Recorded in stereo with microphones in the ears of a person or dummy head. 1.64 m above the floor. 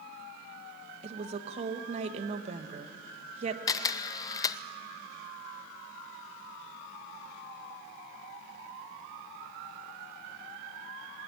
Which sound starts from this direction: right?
A woman speaking, at 1.0 s.